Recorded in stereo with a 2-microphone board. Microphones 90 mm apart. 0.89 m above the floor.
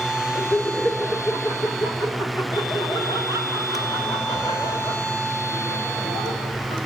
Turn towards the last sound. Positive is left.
turn(degrees=80)